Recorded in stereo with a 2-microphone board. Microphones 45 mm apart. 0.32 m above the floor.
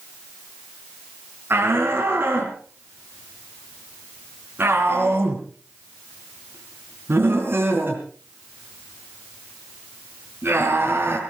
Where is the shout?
55° right (ahead or behind), 4 m.